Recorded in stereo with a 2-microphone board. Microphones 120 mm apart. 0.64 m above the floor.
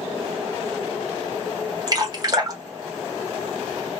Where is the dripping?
35° right (ahead or behind), 1.0 m.